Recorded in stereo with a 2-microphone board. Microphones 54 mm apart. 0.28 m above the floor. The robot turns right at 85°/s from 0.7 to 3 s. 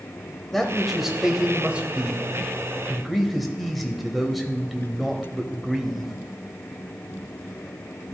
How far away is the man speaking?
About 1.2 m.